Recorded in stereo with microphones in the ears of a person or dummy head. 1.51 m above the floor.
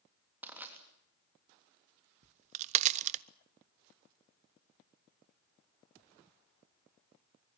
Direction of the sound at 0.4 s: 10° right (ahead or behind).